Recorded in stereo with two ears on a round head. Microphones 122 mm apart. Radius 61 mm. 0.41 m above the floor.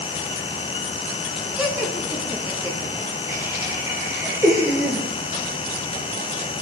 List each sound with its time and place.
1.6 s laughter: 10° right (ahead or behind), 4.5 m; by 5.1 s 20° right (ahead or behind), 7 m